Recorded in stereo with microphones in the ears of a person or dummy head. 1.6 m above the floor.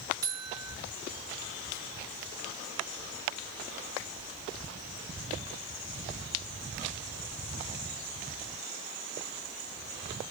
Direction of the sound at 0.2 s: 20° right (ahead or behind).